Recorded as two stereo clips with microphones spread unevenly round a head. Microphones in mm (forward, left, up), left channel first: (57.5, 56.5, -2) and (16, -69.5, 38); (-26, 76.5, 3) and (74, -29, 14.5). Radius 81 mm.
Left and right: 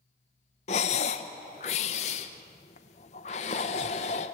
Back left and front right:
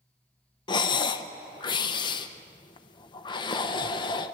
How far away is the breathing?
About 0.8 m.